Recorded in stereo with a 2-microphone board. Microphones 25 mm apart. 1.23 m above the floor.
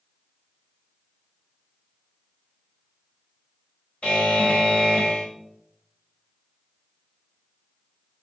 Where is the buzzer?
55° left (ahead or behind), 1.8 m.